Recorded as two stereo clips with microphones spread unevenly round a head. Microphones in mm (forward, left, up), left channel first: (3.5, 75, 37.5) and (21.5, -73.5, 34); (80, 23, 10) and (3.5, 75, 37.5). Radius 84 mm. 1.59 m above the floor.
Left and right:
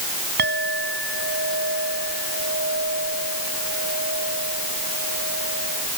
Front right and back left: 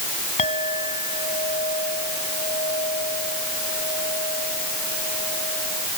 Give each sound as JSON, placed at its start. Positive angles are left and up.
{"t": 0.4, "sound": "a clink", "azimuth_deg": -65}